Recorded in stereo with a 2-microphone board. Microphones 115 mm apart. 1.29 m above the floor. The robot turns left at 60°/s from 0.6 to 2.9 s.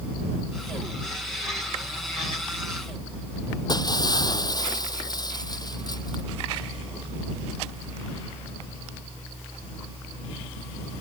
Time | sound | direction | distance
3.7 | breaking glass | 35° left (ahead or behind) | ?